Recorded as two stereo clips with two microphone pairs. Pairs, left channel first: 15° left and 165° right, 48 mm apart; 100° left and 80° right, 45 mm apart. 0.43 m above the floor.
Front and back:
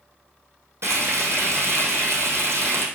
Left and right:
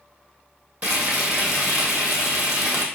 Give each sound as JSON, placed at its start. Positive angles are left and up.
{"t": 0.8, "sound": "frying", "azimuth_deg": -130, "distance_m": 2.5}